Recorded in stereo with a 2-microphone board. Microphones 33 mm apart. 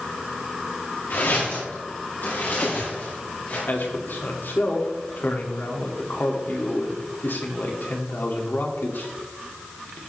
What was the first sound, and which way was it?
Footsteps, 75° left (ahead or behind).